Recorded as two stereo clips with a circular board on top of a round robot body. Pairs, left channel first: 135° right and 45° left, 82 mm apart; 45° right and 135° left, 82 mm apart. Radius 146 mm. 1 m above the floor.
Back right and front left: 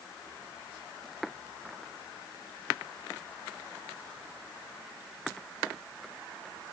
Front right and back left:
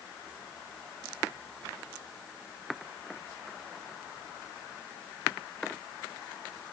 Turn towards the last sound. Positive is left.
No sound to turn to.